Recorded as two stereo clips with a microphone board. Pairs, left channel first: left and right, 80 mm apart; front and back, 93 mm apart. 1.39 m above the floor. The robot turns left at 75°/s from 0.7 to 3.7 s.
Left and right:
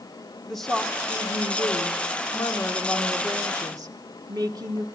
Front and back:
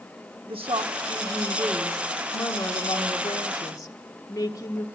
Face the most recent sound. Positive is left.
turn(degrees=-50)